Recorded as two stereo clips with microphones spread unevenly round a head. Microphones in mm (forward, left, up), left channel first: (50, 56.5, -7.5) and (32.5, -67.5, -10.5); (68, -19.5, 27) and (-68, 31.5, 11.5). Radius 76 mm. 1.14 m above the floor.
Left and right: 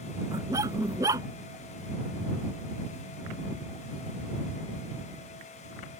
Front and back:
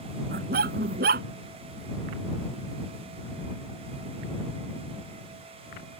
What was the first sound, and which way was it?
A dog barking, 170° right.